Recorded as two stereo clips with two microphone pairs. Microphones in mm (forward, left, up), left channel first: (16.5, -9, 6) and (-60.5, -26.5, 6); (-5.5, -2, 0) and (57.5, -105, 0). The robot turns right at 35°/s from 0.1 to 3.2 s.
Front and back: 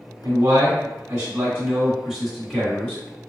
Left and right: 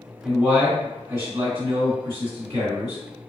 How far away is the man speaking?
About 1.8 m.